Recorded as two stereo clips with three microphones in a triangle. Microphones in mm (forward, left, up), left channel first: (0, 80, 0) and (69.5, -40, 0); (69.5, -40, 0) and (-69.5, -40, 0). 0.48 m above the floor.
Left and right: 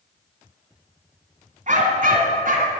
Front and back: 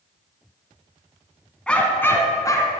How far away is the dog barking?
About 1.4 m.